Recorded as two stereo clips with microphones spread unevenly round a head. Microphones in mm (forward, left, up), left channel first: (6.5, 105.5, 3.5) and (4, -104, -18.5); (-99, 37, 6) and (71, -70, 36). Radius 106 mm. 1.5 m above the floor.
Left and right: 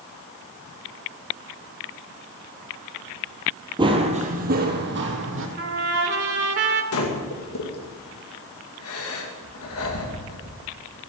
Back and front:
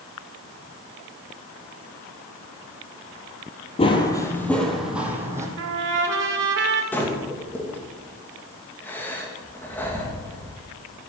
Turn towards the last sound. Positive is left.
turn(degrees=65)